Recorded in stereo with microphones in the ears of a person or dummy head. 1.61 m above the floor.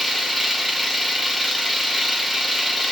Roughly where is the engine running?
Centre.